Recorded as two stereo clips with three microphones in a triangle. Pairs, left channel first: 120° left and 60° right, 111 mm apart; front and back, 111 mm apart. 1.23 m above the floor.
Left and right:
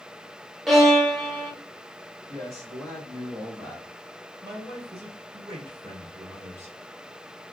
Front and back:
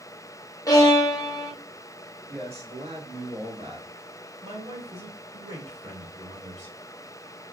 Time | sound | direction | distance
0.7 | a violin | 30° left | 0.7 m
2.3 | a man speaking | 115° right | 1.9 m
4.4 | a man speaking | 125° right | 2 m